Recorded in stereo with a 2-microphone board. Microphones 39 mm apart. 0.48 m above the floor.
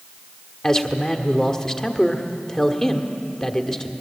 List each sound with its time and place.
0.6 s a man speaking: 15° left (ahead or behind), 1.5 m